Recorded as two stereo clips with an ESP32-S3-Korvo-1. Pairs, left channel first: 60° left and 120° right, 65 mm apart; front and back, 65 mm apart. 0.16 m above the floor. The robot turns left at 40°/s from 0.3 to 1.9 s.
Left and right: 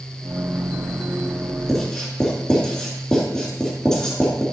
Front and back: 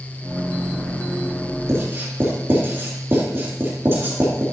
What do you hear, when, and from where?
1.7 s writing: 145° left, 2.5 m; by 4.4 s 135° left, 2.5 m